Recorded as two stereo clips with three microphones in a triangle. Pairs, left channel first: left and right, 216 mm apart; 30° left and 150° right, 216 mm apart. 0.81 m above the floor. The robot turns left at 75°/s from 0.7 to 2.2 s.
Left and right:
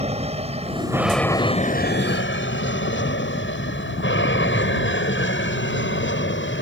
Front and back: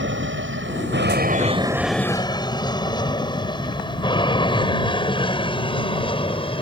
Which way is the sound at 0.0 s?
145° right.